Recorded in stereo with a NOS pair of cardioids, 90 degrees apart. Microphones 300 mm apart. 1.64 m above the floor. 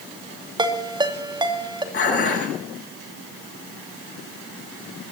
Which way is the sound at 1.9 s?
40° left.